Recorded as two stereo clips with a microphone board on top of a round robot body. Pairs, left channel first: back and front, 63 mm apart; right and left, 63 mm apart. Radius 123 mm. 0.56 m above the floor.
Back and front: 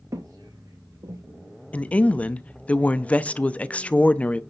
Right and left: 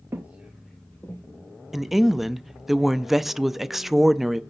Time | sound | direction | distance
0.1 | footsteps | 35° left | 0.9 m
1.7 | a woman speaking | 170° left | 0.6 m